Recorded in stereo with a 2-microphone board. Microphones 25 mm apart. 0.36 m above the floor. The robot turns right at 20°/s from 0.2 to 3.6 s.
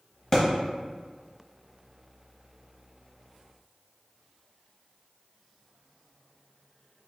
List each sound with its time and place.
0.3 s a thud: 30° left (ahead or behind), 0.9 m